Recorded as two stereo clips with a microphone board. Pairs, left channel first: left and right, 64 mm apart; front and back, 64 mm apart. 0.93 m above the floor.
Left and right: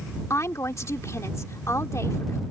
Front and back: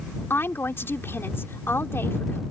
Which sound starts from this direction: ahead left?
A woman speaking, at 0.3 s.